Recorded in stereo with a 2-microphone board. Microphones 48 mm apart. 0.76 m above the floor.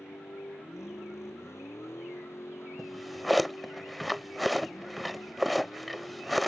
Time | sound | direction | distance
0.0 | a vehicle | 75° left (ahead or behind) | ?
2.8 | a drawer | centre (ahead or behind) | ?